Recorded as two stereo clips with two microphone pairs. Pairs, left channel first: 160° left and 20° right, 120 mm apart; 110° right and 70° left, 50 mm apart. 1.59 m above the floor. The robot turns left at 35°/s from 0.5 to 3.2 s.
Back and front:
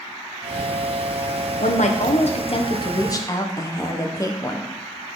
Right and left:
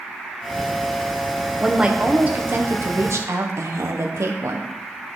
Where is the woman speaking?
155° left, 1.1 m; by 4.7 s 100° left, 1.1 m.